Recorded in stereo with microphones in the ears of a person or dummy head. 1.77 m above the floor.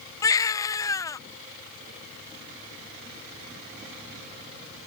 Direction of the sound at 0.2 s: 15° left (ahead or behind).